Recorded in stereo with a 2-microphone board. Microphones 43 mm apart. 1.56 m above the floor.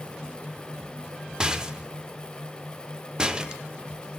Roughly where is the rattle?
Centre.